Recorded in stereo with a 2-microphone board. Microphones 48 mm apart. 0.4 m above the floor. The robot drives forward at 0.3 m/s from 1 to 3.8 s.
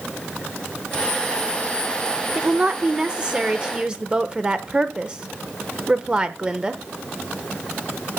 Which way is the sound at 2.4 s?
20° right (ahead or behind).